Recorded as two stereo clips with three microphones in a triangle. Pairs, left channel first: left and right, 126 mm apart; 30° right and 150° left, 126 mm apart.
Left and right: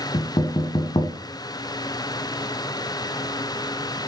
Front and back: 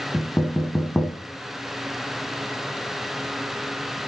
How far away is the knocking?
About 1.4 m.